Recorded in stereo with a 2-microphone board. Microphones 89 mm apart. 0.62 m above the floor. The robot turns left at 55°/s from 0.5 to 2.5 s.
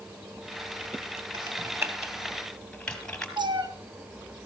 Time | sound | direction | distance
1.3 | typing on a keyboard | 55° right (ahead or behind) | 2.5 m
3.4 | a cat meowing | 60° right (ahead or behind) | 1.9 m